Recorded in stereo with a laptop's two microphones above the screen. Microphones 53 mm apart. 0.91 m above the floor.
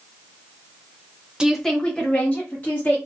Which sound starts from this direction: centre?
A woman speaking, at 1.4 s.